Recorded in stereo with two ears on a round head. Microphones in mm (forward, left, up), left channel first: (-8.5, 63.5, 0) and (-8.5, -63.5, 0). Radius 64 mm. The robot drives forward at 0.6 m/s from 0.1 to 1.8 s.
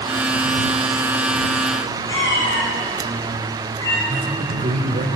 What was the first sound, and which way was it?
A cat meowing, 25° left (ahead or behind).